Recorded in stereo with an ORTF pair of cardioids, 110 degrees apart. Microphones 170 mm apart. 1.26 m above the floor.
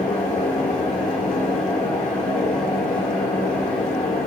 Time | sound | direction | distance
0.0 | a fan | 50° left | 5 m